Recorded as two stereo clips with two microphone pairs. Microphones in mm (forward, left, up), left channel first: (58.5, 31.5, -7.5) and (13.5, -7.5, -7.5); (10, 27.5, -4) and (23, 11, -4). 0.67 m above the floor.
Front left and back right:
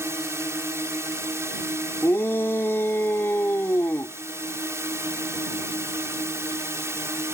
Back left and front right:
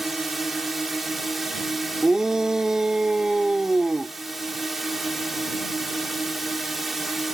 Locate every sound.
0.0 s a drone: 135° right
2.0 s a shout: straight ahead